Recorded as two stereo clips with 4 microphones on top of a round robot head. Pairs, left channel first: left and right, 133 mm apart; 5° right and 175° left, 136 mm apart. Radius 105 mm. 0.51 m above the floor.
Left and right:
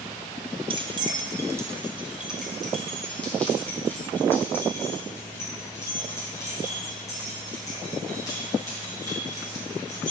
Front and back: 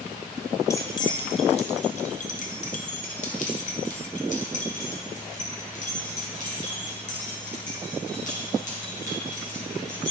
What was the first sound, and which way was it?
Keys jangling, 65° right.